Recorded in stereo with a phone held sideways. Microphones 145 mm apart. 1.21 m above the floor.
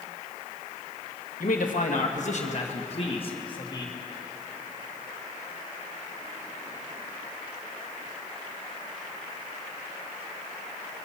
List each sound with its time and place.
1.4 s a man speaking: 70° left (ahead or behind), 1.5 m; by 3.9 s 30° left (ahead or behind), 1.9 m